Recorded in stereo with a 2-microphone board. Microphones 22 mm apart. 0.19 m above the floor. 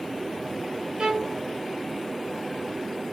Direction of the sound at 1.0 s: 45° right (ahead or behind).